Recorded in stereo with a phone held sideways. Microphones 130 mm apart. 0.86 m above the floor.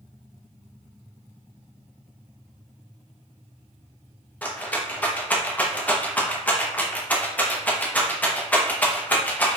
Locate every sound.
4.4 s a rattle: 10° left (ahead or behind), 0.7 m